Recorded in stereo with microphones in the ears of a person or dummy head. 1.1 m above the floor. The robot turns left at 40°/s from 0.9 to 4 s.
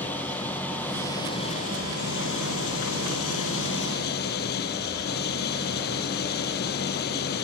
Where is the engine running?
175° left; by 7.5 s 50° left.